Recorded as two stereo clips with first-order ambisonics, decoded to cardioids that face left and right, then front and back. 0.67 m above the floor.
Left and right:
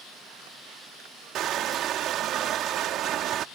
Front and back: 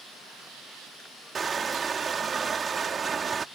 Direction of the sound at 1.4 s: 120° right.